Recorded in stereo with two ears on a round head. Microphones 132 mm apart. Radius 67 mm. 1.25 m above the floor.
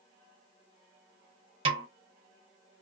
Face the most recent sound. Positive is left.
turn(degrees=-35)  # may be behind; listen again after turning